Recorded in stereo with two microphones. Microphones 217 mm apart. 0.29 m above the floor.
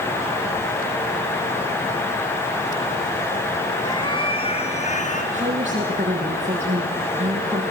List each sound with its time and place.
3.8 s a cat meowing: 20° left (ahead or behind), 2.5 m; by 5.2 s 35° left (ahead or behind), 2.5 m
5.3 s a woman speaking: 30° right (ahead or behind), 7.5 m